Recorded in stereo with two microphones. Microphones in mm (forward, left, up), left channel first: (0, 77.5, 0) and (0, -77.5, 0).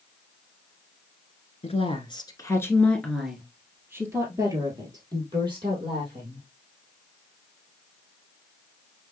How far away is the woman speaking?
About 1.3 m.